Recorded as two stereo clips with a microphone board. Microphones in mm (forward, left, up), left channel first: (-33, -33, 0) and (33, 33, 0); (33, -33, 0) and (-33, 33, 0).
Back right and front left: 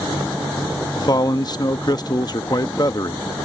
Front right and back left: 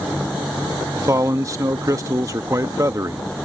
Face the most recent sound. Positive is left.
turn(degrees=-175)